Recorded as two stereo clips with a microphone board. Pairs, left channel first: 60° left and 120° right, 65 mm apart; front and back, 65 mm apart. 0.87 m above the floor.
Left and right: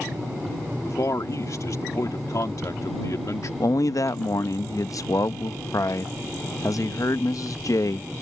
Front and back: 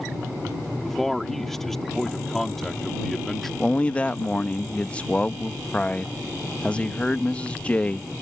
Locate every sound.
0.8 s a man speaking: 80° left
3.6 s a man speaking: 65° left